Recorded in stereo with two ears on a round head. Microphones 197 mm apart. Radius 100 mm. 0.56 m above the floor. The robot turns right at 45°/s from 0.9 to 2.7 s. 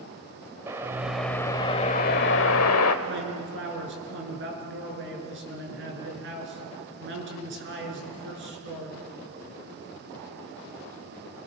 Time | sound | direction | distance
0.7 | a whoosh | 10° right | 1.3 m
3.0 | a man speaking | 60° right (ahead or behind) | 7 m